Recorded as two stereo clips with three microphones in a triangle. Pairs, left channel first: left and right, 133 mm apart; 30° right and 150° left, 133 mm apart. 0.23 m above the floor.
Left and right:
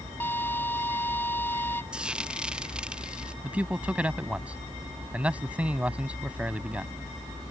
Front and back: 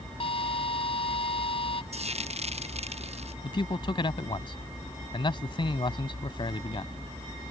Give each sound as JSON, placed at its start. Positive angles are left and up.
{"t": 0.2, "sound": "a drill", "azimuth_deg": 15}
{"t": 1.9, "sound": "frying", "azimuth_deg": -175}
{"t": 3.4, "sound": "a man speaking", "azimuth_deg": -15}